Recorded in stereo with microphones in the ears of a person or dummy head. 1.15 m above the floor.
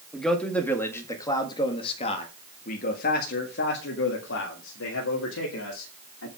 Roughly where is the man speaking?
Centre.